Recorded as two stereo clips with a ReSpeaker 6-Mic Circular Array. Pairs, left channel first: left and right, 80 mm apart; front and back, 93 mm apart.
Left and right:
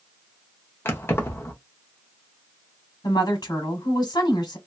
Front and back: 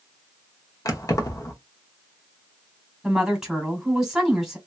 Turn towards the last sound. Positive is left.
turn(degrees=95)